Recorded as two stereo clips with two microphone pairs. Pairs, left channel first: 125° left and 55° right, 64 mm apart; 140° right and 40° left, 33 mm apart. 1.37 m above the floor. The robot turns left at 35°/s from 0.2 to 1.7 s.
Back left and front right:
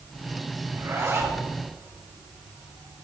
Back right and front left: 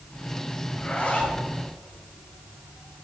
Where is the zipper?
75° right, 3.5 m; by 1.4 s 100° right, 3.5 m.